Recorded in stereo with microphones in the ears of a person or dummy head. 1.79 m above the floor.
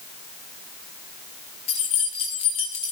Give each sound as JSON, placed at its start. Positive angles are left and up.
{"t": 1.7, "sound": "keys jangling", "side_deg": 20, "distance_m": 0.7}